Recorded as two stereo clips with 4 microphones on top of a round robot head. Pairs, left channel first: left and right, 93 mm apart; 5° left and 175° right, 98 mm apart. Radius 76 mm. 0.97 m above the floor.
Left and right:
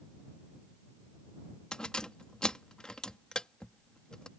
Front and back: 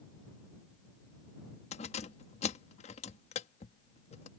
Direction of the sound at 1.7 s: 10° left.